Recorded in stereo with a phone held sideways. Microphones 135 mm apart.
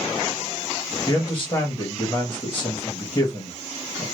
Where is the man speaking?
15° left (ahead or behind), 1.3 m.